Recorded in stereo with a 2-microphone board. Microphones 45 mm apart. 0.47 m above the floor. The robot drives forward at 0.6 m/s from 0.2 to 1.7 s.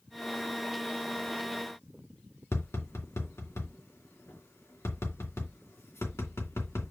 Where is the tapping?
85° left, 2.5 m.